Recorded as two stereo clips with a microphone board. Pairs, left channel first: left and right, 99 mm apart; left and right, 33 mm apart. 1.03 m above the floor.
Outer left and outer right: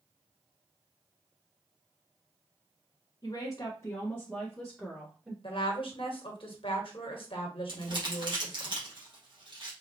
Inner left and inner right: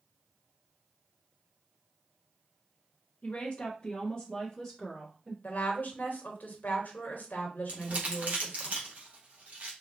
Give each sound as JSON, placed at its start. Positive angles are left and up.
{"t": 3.2, "sound": "a woman speaking", "side_deg": 45, "distance_m": 1.0}
{"t": 5.4, "sound": "a woman speaking", "side_deg": 60, "distance_m": 1.3}
{"t": 7.7, "sound": "crumpling", "side_deg": -55, "distance_m": 1.5}